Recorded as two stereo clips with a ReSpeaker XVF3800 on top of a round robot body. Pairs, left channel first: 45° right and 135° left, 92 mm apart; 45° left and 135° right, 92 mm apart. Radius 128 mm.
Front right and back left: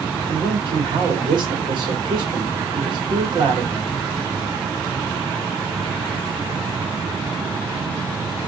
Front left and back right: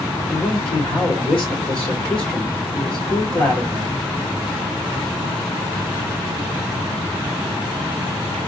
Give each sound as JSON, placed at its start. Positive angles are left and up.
{"t": 0.3, "sound": "a man speaking", "azimuth_deg": 120, "distance_m": 2.5}